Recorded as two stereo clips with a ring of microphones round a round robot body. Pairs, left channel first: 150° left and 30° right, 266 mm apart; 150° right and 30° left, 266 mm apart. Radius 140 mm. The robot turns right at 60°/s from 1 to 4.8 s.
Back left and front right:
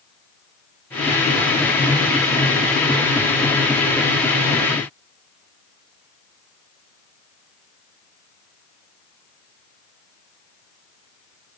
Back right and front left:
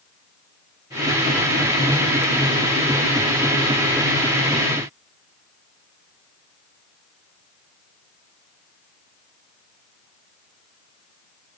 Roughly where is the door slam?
I don't hear a door slam.